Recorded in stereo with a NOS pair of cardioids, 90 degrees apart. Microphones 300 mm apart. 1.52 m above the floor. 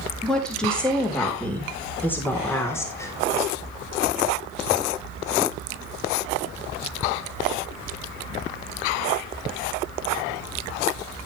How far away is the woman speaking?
About 5 m.